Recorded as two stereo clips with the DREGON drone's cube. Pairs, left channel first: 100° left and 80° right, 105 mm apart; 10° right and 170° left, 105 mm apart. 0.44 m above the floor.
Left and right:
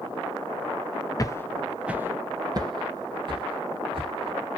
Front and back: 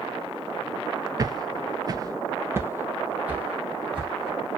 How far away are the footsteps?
About 0.5 m.